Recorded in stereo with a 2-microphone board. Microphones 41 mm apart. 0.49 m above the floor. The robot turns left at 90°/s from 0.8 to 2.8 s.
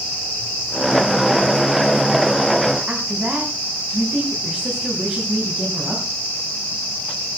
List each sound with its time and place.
2.9 s a woman speaking: 35° right (ahead or behind), 4.5 m